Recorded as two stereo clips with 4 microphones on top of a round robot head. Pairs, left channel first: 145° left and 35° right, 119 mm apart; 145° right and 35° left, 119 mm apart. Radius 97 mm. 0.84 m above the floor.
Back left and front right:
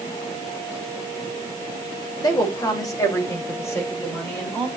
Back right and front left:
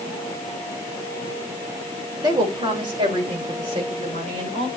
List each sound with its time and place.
2.2 s a woman speaking: 90° left, 3 m; by 4.7 s 70° left, 5 m